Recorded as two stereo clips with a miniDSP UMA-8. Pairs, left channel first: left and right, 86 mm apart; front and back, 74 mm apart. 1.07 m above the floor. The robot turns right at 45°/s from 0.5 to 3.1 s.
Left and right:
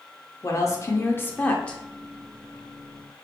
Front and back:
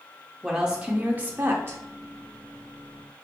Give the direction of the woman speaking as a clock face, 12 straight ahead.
9 o'clock.